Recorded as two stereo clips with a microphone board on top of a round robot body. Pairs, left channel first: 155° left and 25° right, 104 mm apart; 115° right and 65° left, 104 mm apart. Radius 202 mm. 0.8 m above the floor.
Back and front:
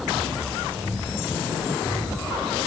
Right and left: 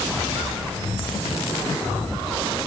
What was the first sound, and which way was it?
Only background noise.